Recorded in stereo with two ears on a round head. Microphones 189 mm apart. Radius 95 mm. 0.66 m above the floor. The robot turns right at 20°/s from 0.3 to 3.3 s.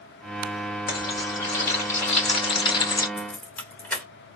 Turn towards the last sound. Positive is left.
turn(degrees=10)  # may be behind; listen again after turning